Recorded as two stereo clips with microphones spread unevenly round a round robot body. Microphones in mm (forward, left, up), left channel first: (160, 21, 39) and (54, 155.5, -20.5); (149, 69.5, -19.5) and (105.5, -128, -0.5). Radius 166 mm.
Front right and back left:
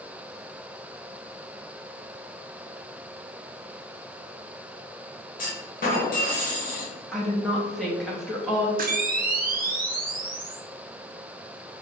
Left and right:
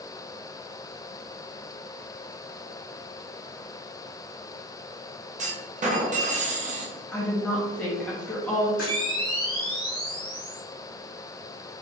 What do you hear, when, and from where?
5.4 s a clunk: 85° right, 1.1 m
7.1 s a woman speaking: 130° left, 0.6 m
8.8 s a camera shutter: 130° left, 0.8 m